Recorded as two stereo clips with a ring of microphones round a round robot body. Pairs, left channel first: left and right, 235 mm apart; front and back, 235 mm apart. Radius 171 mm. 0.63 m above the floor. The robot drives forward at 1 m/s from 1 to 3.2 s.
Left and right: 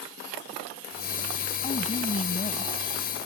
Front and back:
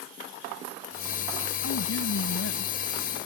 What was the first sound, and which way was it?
A woman speaking, 25° left.